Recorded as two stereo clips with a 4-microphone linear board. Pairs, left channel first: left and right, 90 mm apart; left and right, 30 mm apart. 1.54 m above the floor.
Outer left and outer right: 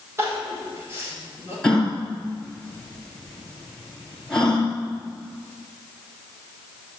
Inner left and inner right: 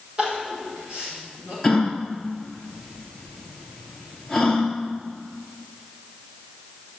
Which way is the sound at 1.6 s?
10° left (ahead or behind).